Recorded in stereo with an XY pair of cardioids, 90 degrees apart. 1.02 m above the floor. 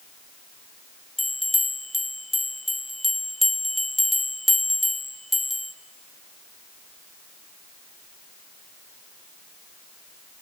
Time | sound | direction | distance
1.2 | a bell | 10° left | 1.2 m